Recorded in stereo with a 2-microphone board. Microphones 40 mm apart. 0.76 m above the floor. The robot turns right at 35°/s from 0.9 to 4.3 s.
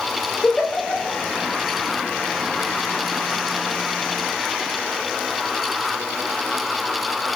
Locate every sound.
0.4 s a giggle: 20° left (ahead or behind), 2 m; by 1.2 s 10° left (ahead or behind), 2 m